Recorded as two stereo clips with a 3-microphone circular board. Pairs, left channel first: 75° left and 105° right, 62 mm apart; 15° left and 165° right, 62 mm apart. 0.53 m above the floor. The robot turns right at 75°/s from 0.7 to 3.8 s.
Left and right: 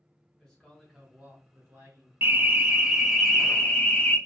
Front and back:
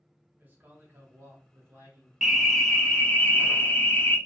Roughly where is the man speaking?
Behind left.